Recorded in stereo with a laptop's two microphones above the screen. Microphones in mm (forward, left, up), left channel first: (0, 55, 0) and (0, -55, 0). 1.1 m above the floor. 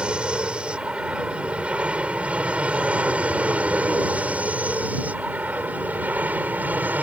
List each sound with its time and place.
0.0 s an aircraft: 10° right (ahead or behind); by 7.0 s 15° right (ahead or behind)